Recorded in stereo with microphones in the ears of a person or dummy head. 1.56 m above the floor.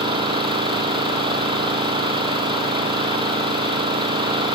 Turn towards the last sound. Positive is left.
turn(degrees=-30)  # may be behind; listen again after turning